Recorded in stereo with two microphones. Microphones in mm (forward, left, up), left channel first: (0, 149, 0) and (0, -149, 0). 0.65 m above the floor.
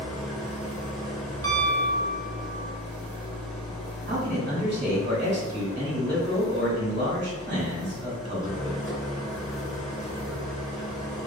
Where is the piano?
50° right (ahead or behind), 0.6 m.